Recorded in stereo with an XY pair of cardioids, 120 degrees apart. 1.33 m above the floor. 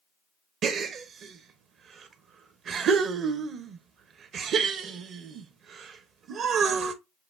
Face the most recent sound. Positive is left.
turn(degrees=-55)